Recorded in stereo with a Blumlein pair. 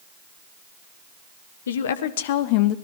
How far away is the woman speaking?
About 1.3 m.